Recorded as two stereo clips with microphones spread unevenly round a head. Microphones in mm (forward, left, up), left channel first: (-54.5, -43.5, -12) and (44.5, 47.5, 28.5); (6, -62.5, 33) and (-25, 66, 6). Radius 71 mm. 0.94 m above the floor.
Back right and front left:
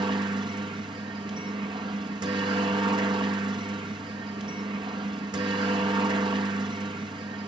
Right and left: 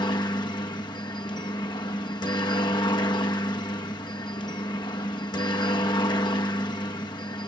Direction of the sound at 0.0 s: 20° right.